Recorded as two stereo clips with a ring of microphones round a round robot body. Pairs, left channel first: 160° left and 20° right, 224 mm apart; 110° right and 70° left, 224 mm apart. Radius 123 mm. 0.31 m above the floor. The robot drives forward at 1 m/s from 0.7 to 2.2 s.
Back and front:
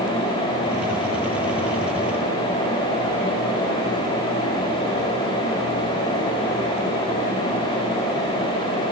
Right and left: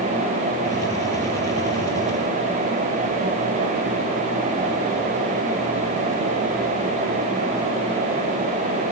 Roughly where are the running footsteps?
No running footsteps in this recording.